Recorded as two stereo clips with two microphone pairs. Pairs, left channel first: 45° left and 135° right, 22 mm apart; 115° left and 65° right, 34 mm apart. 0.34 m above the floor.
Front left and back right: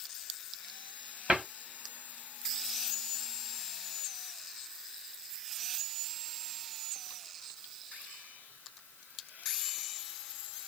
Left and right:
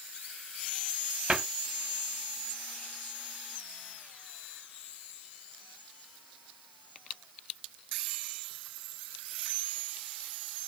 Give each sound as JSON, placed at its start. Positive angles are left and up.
{"t": 1.3, "sound": "a cupboard door", "azimuth_deg": -120, "distance_m": 1.3}